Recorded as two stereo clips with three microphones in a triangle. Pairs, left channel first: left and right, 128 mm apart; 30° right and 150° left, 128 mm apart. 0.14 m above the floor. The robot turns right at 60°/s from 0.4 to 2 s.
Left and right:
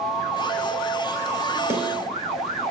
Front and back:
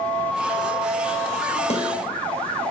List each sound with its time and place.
1.7 s a snare drum: 25° right, 1.0 m; by 1.9 s 10° right, 1.0 m